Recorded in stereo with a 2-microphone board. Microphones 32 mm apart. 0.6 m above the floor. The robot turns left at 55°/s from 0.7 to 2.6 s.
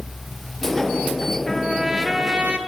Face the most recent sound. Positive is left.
turn(degrees=-55)